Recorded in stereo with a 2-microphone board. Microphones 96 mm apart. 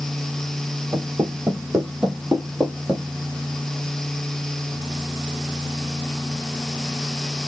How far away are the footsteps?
About 3.5 m.